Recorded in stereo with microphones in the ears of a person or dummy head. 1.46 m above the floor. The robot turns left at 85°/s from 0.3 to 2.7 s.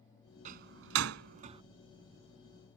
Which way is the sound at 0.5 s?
45° right (ahead or behind).